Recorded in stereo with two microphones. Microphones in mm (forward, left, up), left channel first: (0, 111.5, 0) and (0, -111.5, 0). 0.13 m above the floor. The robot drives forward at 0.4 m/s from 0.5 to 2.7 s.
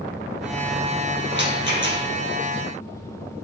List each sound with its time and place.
1.3 s a rattle: 55° right (ahead or behind), 4 m